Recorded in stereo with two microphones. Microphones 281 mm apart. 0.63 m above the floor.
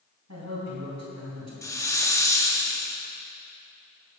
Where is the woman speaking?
75° right (ahead or behind), 4 m.